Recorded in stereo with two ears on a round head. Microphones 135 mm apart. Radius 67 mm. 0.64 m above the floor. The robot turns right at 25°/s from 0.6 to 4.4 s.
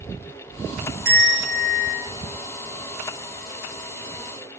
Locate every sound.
1.1 s a bell: 65° right (ahead or behind), 1.3 m; by 2.0 s 80° right, 1.3 m